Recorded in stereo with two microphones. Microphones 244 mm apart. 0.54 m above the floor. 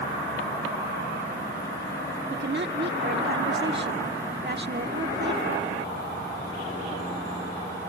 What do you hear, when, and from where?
2.3 s a woman speaking: 45° right (ahead or behind)